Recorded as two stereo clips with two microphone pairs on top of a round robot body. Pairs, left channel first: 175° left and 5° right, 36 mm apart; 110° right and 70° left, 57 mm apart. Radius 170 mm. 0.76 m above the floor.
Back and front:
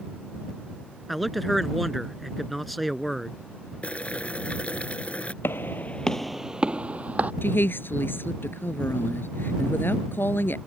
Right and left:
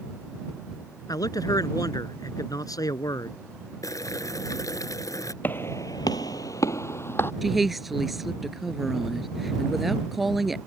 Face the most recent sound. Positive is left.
turn(degrees=160)